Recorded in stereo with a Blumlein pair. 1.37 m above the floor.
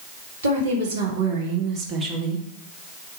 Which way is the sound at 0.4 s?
65° right.